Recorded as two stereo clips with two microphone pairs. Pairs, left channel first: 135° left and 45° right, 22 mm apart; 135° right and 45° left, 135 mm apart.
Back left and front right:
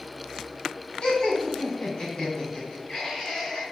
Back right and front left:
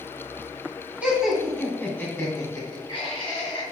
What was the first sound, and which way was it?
Laughter, 120° left.